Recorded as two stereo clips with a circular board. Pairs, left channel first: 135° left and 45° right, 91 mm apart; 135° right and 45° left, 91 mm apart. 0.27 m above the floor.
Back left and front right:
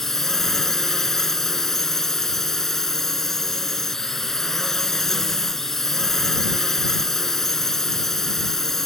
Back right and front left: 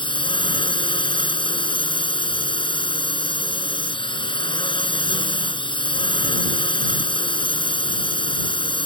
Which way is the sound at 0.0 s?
140° right.